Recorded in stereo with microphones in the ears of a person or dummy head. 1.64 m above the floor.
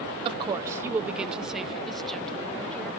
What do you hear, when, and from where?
0.2 s a woman speaking: 25° right (ahead or behind); by 2.9 s 5° left (ahead or behind)